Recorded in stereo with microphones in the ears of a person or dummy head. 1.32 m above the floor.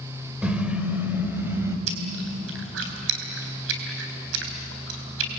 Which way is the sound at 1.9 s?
80° right.